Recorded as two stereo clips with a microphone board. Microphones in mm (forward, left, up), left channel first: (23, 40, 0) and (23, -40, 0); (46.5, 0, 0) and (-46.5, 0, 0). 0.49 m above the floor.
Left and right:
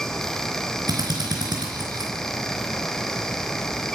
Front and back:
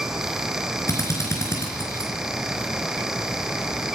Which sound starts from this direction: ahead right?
A drill, at 0.9 s.